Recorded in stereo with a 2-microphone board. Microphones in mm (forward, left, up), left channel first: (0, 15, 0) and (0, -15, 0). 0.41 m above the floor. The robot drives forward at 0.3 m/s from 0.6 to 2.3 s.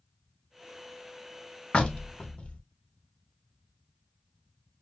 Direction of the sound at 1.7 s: 35° left (ahead or behind).